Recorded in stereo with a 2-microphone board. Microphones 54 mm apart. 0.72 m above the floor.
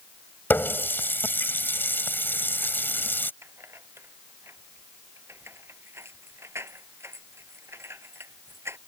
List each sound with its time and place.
0.5 s a running tap: 40° left (ahead or behind)
3.4 s keys jangling: 50° right (ahead or behind)